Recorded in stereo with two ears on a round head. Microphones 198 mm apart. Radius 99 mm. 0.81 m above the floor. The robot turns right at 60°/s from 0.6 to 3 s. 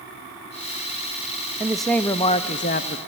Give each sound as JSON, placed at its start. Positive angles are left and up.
{"t": 1.6, "sound": "a man speaking", "azimuth_deg": -10, "distance_m": 0.5}